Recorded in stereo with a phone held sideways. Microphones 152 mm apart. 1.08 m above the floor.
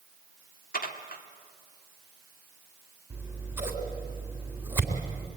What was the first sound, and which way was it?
Dishes clattering, 75° left (ahead or behind).